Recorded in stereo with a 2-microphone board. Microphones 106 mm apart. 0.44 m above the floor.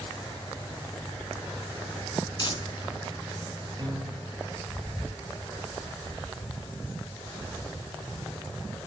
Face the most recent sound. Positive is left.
turn(degrees=-45)  # may be behind; listen again after turning